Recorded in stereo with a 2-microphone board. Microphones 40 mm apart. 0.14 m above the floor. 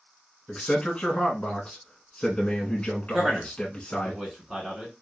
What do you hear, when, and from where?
0.5 s a man speaking: 20° left (ahead or behind), 1.3 m
3.1 s a man speaking: 5° right (ahead or behind), 1.1 m